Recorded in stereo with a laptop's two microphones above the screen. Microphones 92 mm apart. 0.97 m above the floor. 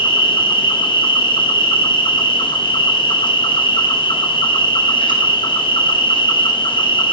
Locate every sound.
0.0 s an insect: 60° left (ahead or behind), 1.3 m